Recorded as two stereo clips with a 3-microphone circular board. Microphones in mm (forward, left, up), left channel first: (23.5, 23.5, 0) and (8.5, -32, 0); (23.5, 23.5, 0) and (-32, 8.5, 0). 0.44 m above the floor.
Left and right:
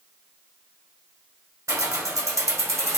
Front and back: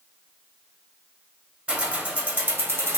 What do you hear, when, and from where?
1.7 s keys jangling: 95° right, 1.4 m; by 3.0 s 130° right, 1.3 m